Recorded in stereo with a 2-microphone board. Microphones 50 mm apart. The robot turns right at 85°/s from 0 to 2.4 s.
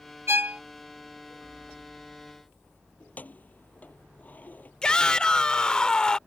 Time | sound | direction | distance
0.3 | a violin | 50° right (ahead or behind) | ?
3.0 | keys jangling | 30° left (ahead or behind) | ?
4.8 | a shout | 15° left (ahead or behind) | ?